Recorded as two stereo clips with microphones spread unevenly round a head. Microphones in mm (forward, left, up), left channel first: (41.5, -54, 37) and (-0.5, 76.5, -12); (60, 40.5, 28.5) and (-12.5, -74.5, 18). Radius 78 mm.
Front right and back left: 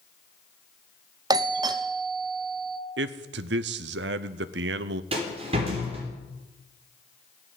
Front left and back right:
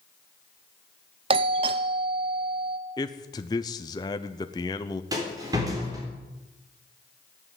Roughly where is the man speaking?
Behind left.